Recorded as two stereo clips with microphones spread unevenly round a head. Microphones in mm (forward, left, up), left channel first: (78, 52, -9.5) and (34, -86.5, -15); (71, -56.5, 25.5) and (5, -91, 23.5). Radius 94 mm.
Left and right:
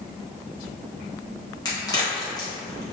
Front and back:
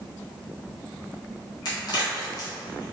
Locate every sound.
1.6 s a crack: 10° left, 1.5 m